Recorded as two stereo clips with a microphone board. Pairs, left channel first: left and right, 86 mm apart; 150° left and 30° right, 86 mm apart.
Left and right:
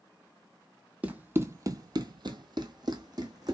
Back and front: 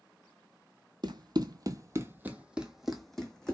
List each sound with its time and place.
1.0 s running footsteps: 20° right, 0.7 m; by 3.5 s 130° right, 1.2 m